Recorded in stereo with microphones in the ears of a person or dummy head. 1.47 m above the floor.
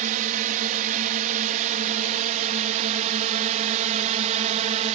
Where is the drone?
40° right (ahead or behind); by 5.0 s 35° right (ahead or behind).